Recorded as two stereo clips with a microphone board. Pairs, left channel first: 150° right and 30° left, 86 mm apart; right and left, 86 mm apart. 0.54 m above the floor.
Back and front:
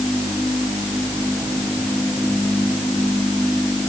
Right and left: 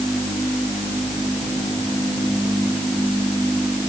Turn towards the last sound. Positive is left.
No sound to turn to.